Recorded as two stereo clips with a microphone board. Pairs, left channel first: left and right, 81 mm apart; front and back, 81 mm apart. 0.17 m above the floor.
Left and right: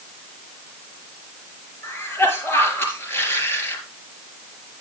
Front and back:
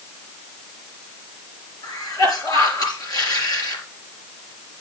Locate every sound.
1.8 s a cough: 30° left, 4 m